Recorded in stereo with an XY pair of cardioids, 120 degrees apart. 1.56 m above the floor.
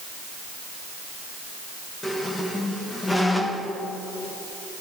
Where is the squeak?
15° left, 1.3 m.